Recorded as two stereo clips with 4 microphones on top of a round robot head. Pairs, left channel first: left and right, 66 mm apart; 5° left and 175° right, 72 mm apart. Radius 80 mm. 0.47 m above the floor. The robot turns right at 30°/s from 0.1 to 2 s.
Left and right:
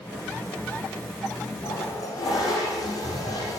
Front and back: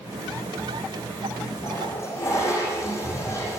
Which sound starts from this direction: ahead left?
A toilet flushing, at 1.6 s.